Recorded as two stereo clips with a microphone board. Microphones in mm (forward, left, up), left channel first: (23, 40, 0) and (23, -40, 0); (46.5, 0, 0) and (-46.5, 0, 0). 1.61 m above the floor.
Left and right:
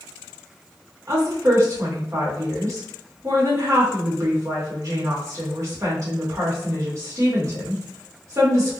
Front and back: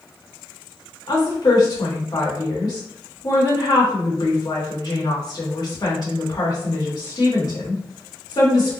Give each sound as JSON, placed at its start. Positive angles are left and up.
{"t": 1.1, "sound": "a woman speaking", "azimuth_deg": -40, "distance_m": 1.8}